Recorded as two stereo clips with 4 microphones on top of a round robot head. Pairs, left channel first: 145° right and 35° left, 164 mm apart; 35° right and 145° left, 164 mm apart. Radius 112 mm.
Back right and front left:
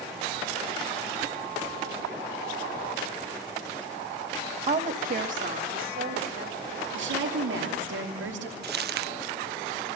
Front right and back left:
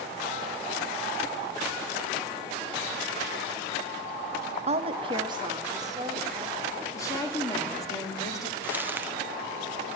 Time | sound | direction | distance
4.7 | a woman speaking | 90° left | 1.2 m
6.9 | a woman speaking | 35° left | 3 m
8.6 | crumpling | 65° left | 0.8 m